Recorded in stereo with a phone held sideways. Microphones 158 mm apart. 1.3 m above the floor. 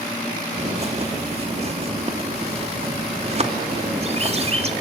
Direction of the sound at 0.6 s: 40° right (ahead or behind).